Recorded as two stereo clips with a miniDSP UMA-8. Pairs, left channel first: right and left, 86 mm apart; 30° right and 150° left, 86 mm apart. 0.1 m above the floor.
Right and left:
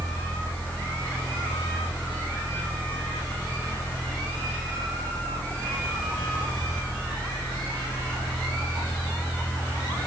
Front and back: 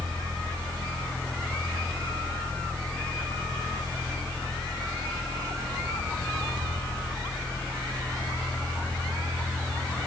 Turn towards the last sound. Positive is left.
No sound to turn to.